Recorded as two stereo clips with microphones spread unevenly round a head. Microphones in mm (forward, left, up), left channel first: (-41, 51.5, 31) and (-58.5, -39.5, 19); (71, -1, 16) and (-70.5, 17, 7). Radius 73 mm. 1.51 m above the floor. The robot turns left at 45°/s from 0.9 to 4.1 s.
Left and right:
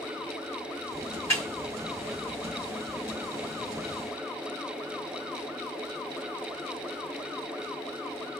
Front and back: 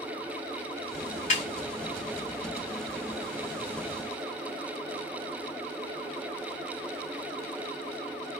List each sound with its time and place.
1.3 s a snare drum: 15° left, 2 m; by 1.5 s 10° left, 2 m